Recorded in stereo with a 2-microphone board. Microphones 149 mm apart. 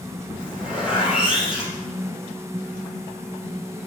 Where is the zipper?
5° right (ahead or behind), 3 m.